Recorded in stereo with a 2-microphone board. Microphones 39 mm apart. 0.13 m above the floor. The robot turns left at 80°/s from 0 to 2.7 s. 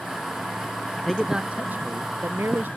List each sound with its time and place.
1.0 s a man speaking: 5° left; by 2.7 s 125° right